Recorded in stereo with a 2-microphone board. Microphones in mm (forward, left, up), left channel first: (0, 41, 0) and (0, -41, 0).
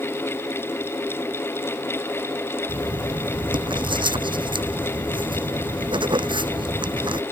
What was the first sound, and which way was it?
Writing, 80° right.